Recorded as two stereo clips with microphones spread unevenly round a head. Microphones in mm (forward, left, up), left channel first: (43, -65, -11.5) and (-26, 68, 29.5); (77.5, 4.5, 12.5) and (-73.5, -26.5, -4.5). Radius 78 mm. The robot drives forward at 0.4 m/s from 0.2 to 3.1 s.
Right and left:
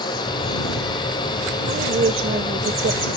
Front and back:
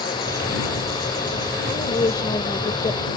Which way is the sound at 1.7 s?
75° left.